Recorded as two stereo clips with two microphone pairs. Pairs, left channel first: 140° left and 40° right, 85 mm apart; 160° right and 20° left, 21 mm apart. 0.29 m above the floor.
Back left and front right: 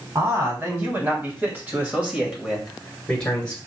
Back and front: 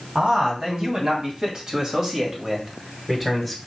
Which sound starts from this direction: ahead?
A man speaking, at 0.1 s.